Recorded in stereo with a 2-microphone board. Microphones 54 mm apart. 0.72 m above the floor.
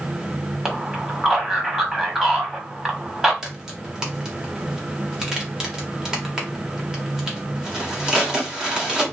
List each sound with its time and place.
0.7 s a man speaking: 10° right (ahead or behind), 1.4 m
3.4 s a crack: 15° right (ahead or behind), 1.1 m